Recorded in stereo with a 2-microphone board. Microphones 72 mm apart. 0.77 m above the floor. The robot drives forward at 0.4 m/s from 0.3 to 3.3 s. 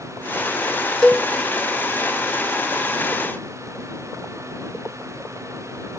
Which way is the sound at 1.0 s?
10° left (ahead or behind).